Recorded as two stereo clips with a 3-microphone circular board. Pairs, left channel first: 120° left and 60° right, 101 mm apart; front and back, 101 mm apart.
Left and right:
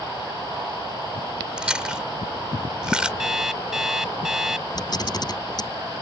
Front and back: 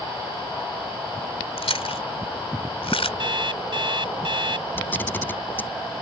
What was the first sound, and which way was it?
Chewing, 20° left.